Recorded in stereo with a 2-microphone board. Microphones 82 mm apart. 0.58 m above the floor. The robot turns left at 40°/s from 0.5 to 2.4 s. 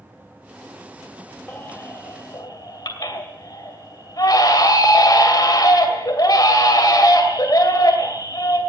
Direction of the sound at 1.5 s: 160° left.